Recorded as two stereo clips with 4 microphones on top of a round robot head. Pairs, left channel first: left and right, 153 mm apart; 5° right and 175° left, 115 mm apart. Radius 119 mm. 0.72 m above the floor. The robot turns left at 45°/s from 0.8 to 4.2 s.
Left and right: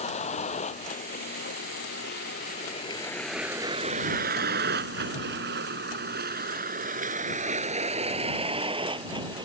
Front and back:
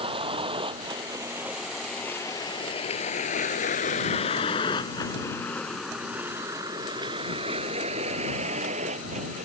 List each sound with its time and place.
0.0 s a vehicle: 135° left; by 9.5 s 150° right